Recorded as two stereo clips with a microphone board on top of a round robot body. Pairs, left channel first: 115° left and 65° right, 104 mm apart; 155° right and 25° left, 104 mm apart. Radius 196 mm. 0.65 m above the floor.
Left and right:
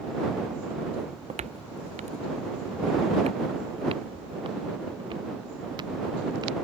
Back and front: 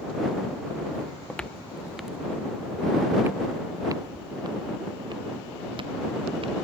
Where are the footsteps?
85° right; by 6.5 s 15° right.